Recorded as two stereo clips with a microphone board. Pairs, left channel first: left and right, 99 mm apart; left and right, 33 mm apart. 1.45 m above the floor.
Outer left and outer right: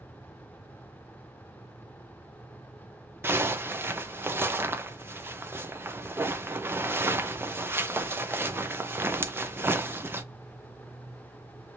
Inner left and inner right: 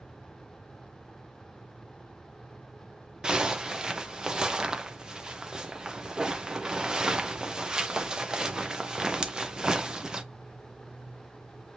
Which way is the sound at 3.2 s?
20° right (ahead or behind).